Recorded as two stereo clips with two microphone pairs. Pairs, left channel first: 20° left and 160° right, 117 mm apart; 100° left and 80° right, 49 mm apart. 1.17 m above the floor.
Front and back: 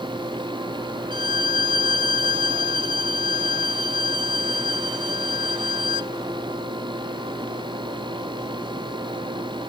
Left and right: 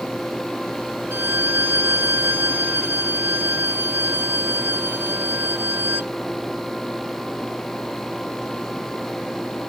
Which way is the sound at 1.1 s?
115° right.